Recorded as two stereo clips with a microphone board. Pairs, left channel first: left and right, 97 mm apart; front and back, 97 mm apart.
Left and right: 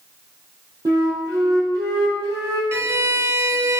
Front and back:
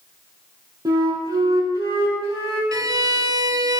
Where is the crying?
I don't hear crying.